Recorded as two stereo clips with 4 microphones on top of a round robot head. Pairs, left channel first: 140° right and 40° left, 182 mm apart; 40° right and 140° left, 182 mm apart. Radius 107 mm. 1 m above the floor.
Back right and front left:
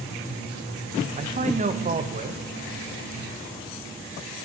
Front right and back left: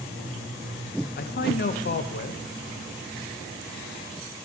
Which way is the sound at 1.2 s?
10° right.